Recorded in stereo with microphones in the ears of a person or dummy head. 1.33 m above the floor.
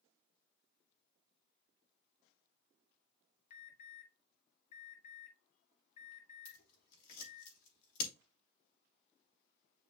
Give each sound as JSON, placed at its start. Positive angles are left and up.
{"t": 3.5, "sound": "an alarm", "side_deg": 45, "distance_m": 2.5}
{"t": 6.5, "sound": "scissors", "side_deg": 70, "distance_m": 3.0}